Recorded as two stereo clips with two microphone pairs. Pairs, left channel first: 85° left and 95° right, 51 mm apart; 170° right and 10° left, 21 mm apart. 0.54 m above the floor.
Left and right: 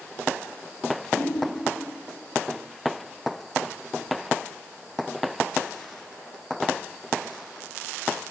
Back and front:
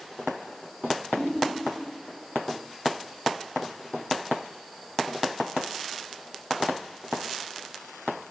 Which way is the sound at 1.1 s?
170° left.